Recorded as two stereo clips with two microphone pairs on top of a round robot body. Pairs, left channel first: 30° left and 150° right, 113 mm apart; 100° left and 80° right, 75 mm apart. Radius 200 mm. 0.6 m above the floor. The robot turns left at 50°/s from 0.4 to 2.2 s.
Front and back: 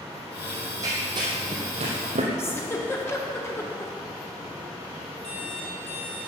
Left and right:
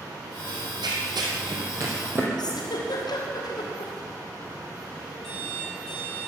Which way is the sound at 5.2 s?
15° left.